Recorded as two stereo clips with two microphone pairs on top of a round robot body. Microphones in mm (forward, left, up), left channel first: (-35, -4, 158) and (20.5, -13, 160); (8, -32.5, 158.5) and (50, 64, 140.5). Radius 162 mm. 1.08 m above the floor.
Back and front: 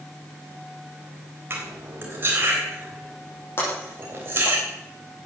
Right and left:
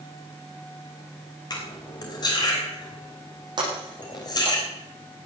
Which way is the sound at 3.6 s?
120° left.